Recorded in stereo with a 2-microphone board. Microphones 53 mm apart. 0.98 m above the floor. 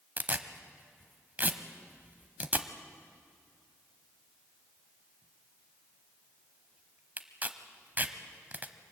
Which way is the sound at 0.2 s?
35° right (ahead or behind).